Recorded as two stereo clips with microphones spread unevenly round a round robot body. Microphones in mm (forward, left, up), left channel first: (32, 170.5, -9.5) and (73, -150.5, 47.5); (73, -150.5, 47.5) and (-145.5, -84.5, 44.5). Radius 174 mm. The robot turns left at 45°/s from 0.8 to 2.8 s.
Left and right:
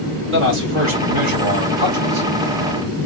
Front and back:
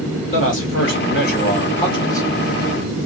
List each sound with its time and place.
0.3 s a man speaking: 30° right, 2 m; by 2.3 s 95° right, 2 m